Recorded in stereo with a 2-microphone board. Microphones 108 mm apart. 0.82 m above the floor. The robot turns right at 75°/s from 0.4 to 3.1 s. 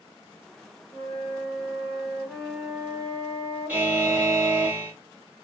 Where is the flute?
55° left, 1.1 m; by 4.7 s 140° right, 1.1 m.